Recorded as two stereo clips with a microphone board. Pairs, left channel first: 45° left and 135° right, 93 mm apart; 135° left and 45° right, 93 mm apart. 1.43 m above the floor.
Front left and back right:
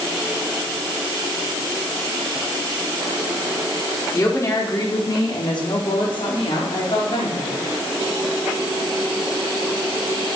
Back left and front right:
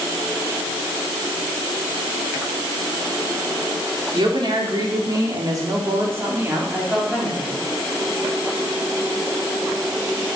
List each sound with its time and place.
4.1 s a woman speaking: 10° right, 4.5 m; by 7.6 s 40° left, 4.5 m